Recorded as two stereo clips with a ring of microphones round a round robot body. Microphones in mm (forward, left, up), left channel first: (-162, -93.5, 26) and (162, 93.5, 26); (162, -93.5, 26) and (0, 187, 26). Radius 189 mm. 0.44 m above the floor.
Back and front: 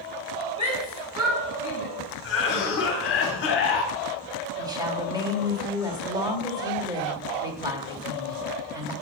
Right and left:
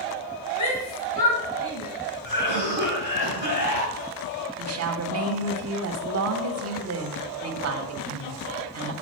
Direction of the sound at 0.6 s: 45° right.